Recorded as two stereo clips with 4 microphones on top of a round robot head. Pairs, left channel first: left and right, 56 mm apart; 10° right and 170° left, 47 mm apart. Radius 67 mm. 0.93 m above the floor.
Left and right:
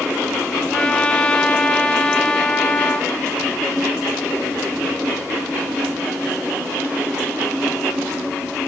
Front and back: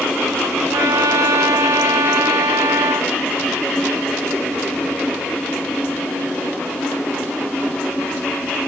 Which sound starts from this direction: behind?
A trumpet, at 0.7 s.